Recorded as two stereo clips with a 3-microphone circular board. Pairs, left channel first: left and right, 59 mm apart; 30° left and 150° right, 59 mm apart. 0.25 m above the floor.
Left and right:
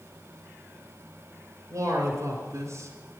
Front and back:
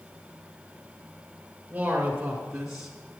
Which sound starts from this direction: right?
A man speaking, at 1.7 s.